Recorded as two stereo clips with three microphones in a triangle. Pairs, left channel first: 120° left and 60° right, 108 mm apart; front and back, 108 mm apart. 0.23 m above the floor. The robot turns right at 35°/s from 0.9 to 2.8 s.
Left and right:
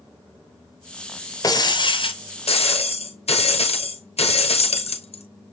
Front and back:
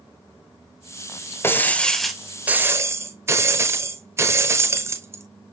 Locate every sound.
1.4 s breaking glass: 70° left, 0.9 m; by 5.2 s 115° left, 0.9 m